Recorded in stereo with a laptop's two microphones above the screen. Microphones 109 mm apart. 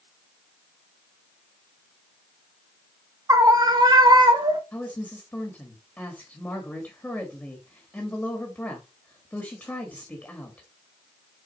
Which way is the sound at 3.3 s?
30° right (ahead or behind).